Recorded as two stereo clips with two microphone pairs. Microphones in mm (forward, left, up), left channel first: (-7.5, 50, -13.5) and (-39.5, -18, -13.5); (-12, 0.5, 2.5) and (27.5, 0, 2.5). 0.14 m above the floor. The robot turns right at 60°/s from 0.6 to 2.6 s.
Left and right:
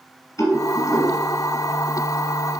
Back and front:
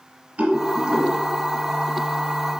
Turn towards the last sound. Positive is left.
turn(degrees=155)